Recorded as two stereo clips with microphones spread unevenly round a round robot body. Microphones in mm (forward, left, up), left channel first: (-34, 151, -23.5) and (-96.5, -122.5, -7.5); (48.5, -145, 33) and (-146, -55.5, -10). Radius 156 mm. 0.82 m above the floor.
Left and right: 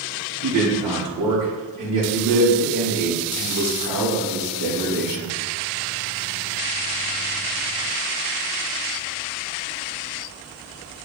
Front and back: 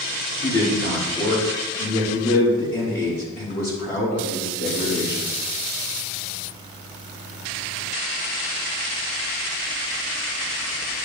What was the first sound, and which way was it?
A man speaking, 70° right.